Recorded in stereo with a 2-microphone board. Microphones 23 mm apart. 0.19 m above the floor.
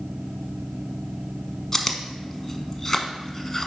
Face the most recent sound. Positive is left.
turn(degrees=25)  # may be behind; listen again after turning